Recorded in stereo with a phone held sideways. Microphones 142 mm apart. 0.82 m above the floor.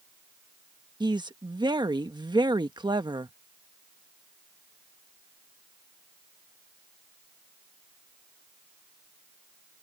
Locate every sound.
1.0 s a woman speaking: 30° right (ahead or behind)